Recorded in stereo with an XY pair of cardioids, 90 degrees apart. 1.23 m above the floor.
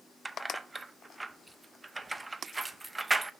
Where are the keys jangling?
25° right, 0.7 m.